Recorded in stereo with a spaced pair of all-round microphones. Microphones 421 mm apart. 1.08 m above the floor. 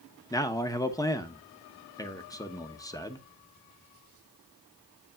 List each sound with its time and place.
0.3 s a man speaking: 10° left (ahead or behind), 0.7 m